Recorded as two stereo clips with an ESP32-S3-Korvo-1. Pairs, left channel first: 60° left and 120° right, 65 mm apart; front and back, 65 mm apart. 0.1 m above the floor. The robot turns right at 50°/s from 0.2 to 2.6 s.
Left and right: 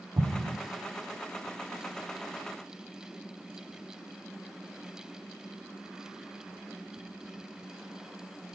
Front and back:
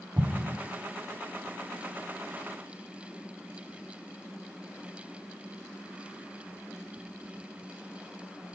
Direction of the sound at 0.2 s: 125° right.